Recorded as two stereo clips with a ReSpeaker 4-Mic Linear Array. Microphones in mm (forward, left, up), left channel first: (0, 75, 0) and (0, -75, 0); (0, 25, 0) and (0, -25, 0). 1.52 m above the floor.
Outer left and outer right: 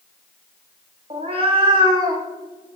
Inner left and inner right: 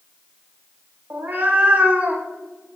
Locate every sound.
1.1 s a cat meowing: 40° right (ahead or behind), 1.4 m; by 2.8 s 25° right (ahead or behind), 1.8 m